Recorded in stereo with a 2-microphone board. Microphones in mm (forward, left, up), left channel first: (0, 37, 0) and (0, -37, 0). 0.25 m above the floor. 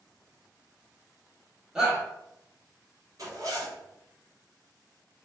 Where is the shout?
10° right (ahead or behind), 0.9 m.